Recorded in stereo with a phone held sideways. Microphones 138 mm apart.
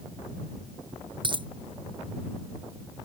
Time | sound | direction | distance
1.2 | a dropped coin | 35° right (ahead or behind) | ?